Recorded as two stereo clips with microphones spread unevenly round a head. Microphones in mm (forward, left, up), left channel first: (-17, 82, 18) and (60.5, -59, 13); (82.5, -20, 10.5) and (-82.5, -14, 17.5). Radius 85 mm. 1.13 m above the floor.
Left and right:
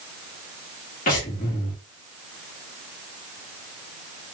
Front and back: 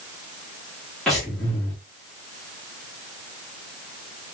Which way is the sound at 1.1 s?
85° left.